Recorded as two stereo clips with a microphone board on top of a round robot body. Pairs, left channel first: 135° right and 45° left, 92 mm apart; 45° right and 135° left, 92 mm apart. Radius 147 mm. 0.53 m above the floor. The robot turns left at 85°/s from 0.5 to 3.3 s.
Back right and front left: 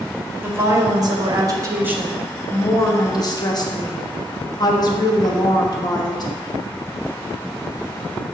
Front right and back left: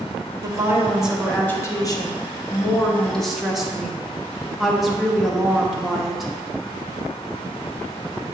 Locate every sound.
0.4 s a woman speaking: 100° left, 0.8 m; by 6.3 s 140° right, 0.8 m